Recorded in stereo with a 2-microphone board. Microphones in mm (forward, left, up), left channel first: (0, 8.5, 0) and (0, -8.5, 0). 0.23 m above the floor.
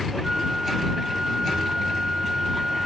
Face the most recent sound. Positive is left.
turn(degrees=-35)  # may be behind; listen again after turning